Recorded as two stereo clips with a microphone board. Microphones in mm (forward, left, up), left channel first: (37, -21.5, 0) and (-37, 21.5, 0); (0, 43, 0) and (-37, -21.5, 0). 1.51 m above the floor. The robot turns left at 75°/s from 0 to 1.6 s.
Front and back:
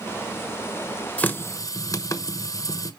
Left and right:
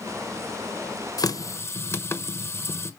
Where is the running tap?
45° left, 0.9 m; by 2.9 s 10° left, 0.9 m.